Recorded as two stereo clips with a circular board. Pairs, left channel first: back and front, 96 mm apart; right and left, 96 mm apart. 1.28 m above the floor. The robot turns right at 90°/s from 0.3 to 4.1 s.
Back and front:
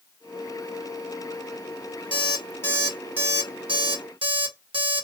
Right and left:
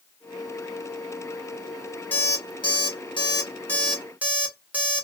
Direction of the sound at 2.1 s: 160° right.